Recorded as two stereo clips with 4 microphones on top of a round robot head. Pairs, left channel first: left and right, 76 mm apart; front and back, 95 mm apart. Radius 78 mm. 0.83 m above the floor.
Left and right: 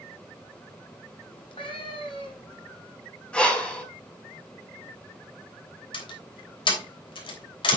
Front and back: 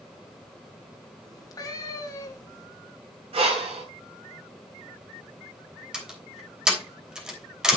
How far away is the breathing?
About 4 m.